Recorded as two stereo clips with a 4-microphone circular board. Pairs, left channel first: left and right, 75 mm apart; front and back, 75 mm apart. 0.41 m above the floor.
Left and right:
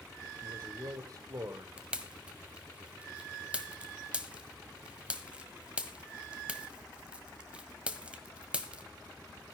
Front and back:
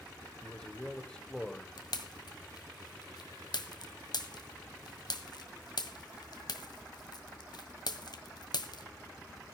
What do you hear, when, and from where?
0.4 s a man speaking: 75° right, 1.7 m
1.8 s a pop: 15° right, 1.6 m